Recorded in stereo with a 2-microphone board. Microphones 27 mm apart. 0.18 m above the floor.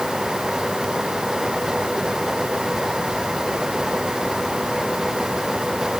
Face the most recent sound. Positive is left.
No sound to turn to.